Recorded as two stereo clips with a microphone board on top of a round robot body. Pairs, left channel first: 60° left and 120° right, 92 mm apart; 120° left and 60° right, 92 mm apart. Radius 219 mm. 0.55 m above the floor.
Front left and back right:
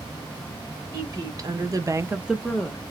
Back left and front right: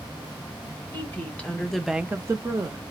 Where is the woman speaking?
170° right, 1.4 m; by 2.9 s 10° right, 0.9 m.